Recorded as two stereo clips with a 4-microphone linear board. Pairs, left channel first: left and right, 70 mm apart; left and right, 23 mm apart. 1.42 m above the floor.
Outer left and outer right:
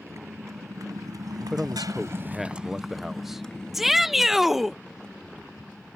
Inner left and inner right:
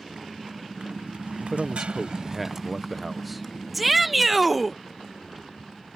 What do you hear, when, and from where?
0.0 s a motorcycle: 40° right (ahead or behind); by 6.0 s 20° left (ahead or behind)
1.4 s a man speaking: 5° right (ahead or behind)
3.7 s a shout: 5° right (ahead or behind)